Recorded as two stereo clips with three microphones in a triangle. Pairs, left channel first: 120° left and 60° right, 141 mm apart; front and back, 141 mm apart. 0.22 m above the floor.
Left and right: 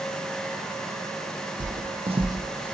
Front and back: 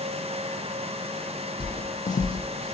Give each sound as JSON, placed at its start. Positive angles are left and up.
{"t": 1.6, "sound": "footsteps", "azimuth_deg": -55, "distance_m": 0.5}